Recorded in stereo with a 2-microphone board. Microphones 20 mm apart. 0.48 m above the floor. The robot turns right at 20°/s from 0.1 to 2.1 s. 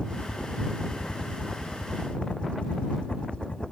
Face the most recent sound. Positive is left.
turn(degrees=65)  # may be behind; listen again after turning